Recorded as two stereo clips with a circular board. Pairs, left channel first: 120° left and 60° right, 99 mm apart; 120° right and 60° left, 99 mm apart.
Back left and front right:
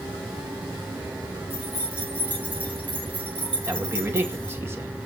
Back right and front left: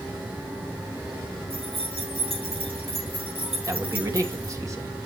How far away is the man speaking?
About 2 m.